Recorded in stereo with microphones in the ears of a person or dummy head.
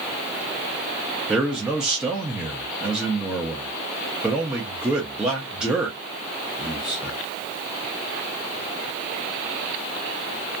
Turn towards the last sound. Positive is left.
turn(degrees=-10)  # may be behind; listen again after turning